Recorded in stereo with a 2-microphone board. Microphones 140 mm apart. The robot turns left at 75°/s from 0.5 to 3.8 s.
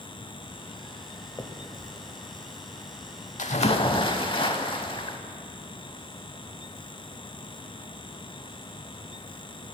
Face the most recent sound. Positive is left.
turn(degrees=40)